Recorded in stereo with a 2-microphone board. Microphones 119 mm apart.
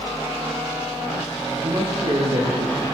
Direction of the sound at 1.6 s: 50° right (ahead or behind).